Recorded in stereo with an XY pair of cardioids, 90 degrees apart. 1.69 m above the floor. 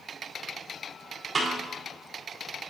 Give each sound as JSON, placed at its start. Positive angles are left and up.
{"t": 1.4, "sound": "a snare drum", "azimuth_deg": -40, "distance_m": 4.0}